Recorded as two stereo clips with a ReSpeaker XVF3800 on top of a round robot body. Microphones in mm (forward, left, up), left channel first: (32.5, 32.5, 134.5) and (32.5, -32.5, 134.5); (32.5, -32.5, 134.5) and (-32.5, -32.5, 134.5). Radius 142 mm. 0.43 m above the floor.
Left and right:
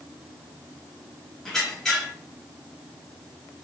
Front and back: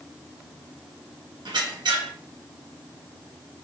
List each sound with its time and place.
1.4 s a squeak: 170° left, 1.0 m